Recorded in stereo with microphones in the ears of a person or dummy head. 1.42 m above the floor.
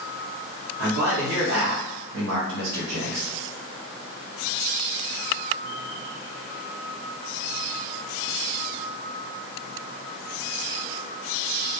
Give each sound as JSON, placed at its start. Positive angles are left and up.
{"t": 0.8, "sound": "a man speaking", "side_deg": -60, "distance_m": 1.2}